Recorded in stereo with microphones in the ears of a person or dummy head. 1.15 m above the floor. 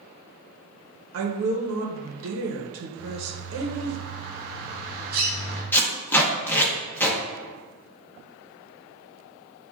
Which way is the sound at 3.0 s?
45° right (ahead or behind).